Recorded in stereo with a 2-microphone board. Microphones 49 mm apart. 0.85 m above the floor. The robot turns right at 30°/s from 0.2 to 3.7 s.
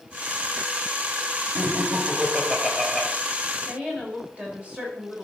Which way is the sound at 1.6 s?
55° right.